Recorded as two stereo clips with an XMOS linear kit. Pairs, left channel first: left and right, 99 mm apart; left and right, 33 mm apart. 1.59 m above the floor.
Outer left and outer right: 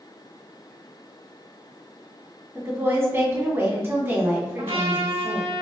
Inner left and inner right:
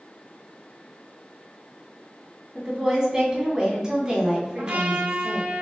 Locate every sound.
2.5 s a woman speaking: 25° right (ahead or behind), 1.9 m
4.6 s a trumpet: 70° right (ahead or behind), 0.9 m